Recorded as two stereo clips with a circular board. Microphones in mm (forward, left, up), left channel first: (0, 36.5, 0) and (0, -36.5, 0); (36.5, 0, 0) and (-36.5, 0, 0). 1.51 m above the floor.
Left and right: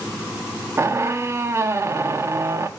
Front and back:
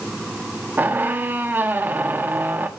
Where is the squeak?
125° right, 1.2 m.